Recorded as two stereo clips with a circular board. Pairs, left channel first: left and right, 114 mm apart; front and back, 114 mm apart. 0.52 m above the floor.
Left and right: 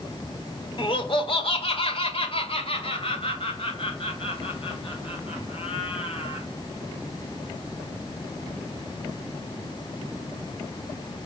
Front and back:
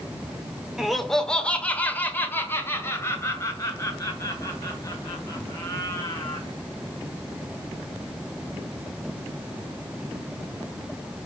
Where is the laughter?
90° left, 1.4 m; by 6.5 s 55° left, 5 m.